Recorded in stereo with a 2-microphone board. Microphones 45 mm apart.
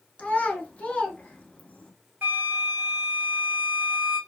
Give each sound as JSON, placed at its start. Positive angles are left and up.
{"t": 0.2, "sound": "a child speaking", "side_deg": 35, "distance_m": 1.0}
{"t": 2.2, "sound": "a flute", "side_deg": -45, "distance_m": 2.5}